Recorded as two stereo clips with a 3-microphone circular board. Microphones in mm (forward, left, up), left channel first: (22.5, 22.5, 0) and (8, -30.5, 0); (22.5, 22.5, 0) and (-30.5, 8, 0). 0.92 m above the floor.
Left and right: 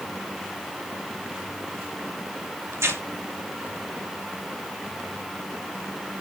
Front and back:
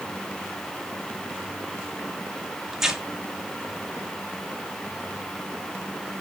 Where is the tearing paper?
85° right, 1.5 m.